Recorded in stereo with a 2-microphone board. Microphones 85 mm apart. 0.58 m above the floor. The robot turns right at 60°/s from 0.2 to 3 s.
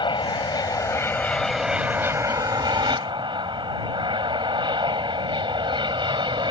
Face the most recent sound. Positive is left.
turn(degrees=-95)